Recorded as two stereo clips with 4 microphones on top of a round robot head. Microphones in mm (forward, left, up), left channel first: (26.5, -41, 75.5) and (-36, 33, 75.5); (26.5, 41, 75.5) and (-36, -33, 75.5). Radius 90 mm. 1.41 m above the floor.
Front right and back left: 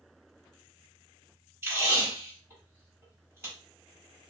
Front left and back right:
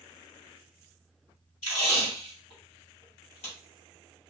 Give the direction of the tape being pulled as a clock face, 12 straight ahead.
10 o'clock.